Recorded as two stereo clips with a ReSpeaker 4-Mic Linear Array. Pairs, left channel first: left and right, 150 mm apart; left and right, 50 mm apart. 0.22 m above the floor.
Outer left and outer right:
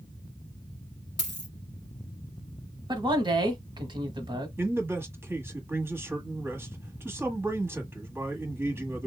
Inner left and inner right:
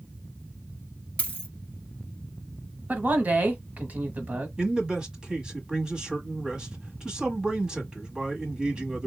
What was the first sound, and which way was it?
A dropped coin, 30° left (ahead or behind).